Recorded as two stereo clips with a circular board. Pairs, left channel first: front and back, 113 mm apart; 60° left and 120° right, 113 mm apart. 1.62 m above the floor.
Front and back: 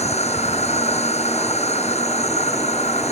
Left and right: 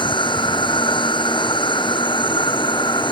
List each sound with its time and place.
0.0 s an insect: 15° left